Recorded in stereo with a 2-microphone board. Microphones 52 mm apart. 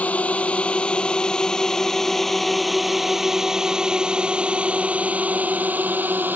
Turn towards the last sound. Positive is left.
turn(degrees=-35)  # may be behind; listen again after turning